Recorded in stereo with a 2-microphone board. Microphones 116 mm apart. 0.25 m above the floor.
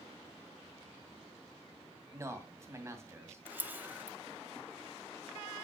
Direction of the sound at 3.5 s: 15° right (ahead or behind).